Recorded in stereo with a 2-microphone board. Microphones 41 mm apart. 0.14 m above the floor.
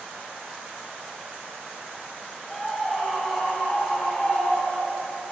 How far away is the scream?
About 5.5 m.